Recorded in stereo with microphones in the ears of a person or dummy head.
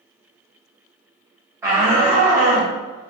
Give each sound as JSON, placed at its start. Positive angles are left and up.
{"t": 1.6, "sound": "a shout", "side_deg": -15, "distance_m": 0.8}